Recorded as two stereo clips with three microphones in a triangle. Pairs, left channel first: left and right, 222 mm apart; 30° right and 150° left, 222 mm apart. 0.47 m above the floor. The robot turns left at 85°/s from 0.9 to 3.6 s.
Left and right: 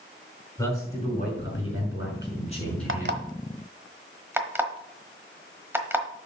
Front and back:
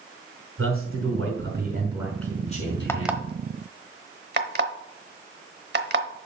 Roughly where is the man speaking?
Behind.